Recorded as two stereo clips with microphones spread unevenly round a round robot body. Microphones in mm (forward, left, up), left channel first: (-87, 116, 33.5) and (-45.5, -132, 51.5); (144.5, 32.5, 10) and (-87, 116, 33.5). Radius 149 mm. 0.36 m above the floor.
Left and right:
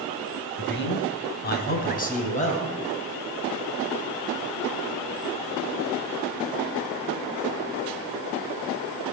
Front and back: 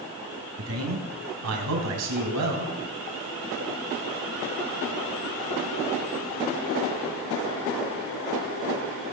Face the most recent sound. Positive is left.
turn(degrees=160)